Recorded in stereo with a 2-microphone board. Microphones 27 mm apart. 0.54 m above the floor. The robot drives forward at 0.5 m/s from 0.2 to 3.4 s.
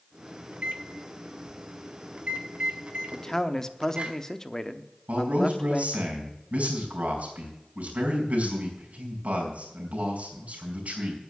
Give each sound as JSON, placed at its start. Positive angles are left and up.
{"t": 0.5, "sound": "a microwave", "side_deg": -65, "distance_m": 1.9}
{"t": 3.1, "sound": "a man speaking", "side_deg": 15, "distance_m": 0.7}
{"t": 5.1, "sound": "a man speaking", "side_deg": -65, "distance_m": 4.5}